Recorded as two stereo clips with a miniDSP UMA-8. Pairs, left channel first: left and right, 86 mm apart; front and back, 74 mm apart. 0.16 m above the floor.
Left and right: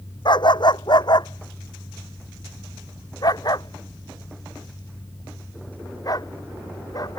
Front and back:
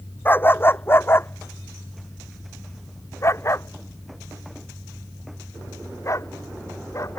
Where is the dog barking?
60° left; by 7.2 s 45° left.